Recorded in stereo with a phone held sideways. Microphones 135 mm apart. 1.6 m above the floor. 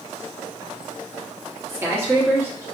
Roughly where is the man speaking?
Centre.